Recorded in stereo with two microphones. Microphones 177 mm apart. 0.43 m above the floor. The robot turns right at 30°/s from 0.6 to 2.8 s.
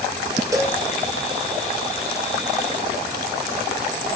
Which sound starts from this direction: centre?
A cowbell, at 0.5 s.